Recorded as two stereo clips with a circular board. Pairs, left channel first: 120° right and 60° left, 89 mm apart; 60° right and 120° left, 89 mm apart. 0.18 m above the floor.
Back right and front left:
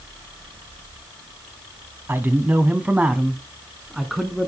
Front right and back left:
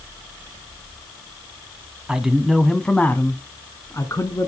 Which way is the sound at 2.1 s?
55° left.